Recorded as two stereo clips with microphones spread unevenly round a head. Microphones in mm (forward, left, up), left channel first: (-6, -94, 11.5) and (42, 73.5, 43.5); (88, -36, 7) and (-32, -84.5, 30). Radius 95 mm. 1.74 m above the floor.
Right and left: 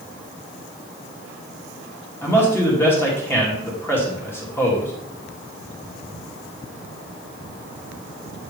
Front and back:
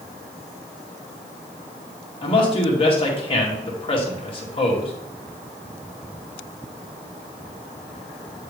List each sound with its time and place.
2.2 s a man speaking: 25° right, 2 m